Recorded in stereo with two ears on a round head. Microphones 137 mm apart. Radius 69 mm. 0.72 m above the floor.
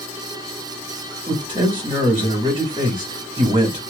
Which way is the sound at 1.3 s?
30° right (ahead or behind).